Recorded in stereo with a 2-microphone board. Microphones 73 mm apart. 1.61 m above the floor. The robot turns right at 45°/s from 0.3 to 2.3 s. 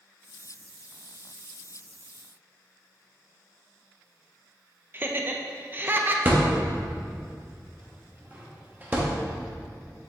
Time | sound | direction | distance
4.9 | laughter | 30° right (ahead or behind) | 0.7 m
6.2 | a thud | 25° right (ahead or behind) | 1.0 m